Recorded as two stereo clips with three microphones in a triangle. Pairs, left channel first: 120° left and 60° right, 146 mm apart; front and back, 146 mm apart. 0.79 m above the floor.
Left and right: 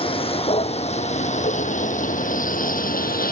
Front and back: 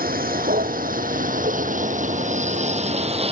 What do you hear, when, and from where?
0.0 s a vehicle: 170° left; by 3.3 s 130° left